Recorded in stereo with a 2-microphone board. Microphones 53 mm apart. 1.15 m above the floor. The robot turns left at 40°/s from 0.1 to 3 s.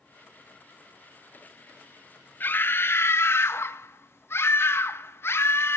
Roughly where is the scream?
Left.